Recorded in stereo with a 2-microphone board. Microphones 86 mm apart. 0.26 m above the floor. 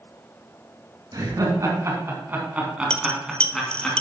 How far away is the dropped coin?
About 0.6 m.